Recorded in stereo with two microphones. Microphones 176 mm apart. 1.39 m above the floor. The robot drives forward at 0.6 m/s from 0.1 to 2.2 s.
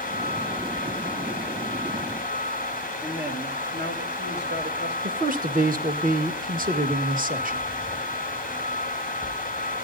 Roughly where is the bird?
No bird in this recording.